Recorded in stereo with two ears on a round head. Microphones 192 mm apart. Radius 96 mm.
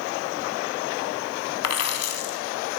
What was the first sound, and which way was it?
A dropped coin, 75° left (ahead or behind).